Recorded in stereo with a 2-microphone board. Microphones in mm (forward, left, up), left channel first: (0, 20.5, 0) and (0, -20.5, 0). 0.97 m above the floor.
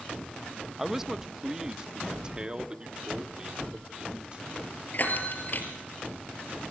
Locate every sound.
0.8 s a man speaking: 5° right (ahead or behind), 0.6 m; by 4.6 s 25° right (ahead or behind), 2.5 m
3.6 s a dropped coin: 50° right (ahead or behind), 2.5 m
4.9 s a bell: 50° left (ahead or behind), 3.5 m